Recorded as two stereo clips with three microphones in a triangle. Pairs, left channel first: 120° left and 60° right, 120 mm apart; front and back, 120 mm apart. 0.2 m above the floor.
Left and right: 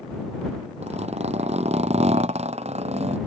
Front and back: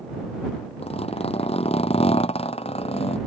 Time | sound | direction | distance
0.8 | a zipper | 35° right | ?